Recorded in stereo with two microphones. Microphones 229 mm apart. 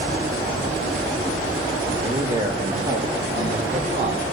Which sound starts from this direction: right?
A man speaking, at 2.0 s.